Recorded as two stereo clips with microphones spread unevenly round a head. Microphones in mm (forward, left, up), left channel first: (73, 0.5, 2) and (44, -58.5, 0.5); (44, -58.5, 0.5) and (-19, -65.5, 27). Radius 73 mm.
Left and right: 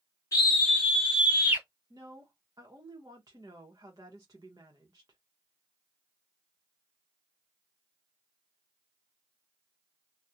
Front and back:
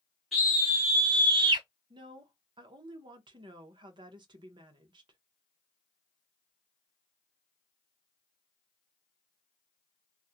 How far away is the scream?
About 0.6 m.